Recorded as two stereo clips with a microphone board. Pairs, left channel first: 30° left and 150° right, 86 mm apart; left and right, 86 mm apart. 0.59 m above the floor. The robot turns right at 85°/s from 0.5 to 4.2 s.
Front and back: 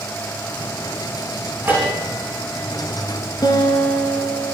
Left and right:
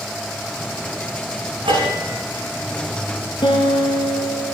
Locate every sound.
1.6 s a bell: 85° right, 9 m; by 4.3 s 130° left, 9 m
3.4 s a guitar: 70° left, 3.5 m; by 4.5 s 135° left, 3.5 m